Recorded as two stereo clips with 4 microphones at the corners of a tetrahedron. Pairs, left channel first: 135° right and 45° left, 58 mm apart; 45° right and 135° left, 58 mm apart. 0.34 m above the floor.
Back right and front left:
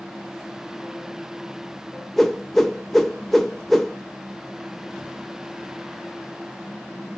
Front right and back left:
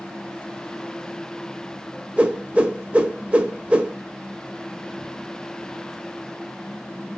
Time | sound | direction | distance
2.2 | a whoosh | 145° left | 0.6 m